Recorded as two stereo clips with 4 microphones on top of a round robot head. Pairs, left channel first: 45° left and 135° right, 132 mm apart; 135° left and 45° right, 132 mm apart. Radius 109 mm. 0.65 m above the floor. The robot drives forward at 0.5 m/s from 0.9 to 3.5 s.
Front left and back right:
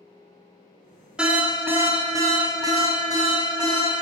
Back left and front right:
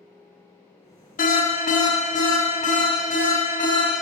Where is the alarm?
140° left, 0.8 m; by 3.9 s 165° left, 1.8 m.